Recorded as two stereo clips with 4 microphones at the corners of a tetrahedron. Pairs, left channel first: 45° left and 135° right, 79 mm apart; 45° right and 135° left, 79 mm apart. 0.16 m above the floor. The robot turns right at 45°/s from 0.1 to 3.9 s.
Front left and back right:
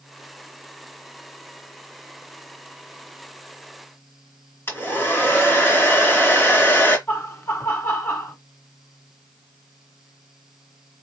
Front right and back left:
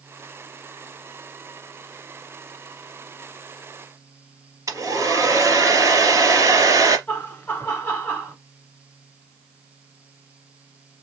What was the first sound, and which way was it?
A hair dryer, 100° left.